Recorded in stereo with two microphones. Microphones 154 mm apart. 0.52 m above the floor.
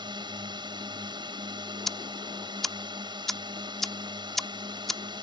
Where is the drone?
30° right (ahead or behind).